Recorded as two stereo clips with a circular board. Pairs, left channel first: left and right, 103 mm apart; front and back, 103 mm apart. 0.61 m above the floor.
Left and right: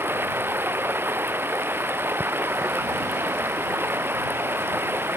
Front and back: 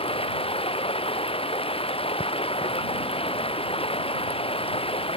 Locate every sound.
0.0 s running water: 20° right